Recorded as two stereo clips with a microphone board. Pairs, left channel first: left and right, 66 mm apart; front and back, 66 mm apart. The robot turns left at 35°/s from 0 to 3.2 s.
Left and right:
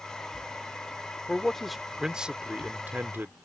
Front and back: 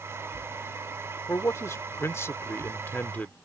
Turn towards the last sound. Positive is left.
turn(degrees=-50)